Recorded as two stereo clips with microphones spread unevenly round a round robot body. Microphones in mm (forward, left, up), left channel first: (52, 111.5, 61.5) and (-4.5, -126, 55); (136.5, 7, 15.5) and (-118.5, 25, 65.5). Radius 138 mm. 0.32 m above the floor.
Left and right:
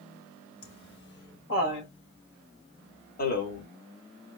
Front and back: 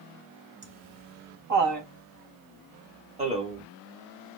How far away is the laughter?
About 3.5 m.